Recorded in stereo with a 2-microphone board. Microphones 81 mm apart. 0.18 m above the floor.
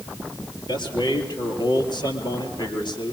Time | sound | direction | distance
0.7 | a man speaking | 65° left (ahead or behind) | 4.5 m